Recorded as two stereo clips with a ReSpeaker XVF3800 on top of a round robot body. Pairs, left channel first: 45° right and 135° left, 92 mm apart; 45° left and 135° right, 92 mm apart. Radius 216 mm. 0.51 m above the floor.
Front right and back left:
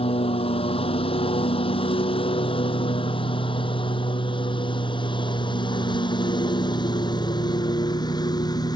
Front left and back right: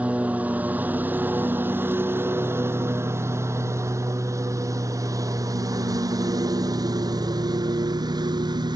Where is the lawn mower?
60° right; by 8.8 s 90° right.